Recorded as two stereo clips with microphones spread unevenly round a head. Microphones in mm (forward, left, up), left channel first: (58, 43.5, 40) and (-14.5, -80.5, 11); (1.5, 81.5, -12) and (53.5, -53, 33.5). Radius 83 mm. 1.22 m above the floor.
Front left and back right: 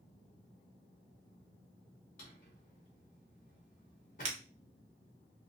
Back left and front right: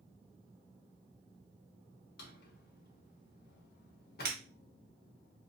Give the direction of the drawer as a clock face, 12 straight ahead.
9 o'clock.